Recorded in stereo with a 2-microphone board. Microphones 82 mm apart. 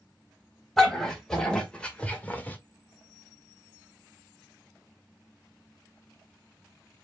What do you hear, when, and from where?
0.8 s a dog barking: 5° left (ahead or behind), 2.5 m; by 2.6 s 20° left (ahead or behind), 1.4 m